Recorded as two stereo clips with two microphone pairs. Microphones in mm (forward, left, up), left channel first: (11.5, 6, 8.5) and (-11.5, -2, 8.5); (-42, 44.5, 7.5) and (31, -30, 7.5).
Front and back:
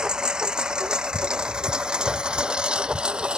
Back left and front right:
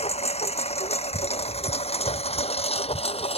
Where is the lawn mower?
140° left; by 3.4 s 150° left.